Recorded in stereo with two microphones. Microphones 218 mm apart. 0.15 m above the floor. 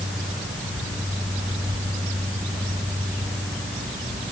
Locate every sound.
Only background noise.